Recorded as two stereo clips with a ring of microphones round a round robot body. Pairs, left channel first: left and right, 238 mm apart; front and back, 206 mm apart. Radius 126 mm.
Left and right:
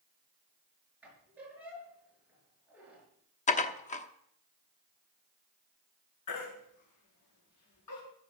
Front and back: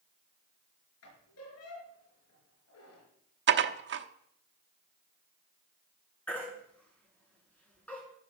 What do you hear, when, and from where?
1.0 s a squeak: 5° right, 6 m
3.5 s dishes clattering: 150° left, 1.0 m
6.3 s a baby crying: 85° left, 7.5 m